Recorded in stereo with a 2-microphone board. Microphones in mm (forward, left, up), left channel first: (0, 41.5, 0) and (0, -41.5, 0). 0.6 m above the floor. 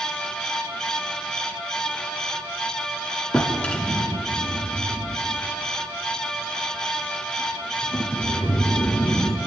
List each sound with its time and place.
3.3 s a drawer: 15° left (ahead or behind), 1.6 m